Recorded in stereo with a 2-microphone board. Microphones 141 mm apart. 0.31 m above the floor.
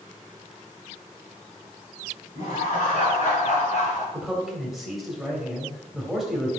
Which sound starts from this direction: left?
Laughter, at 2.4 s.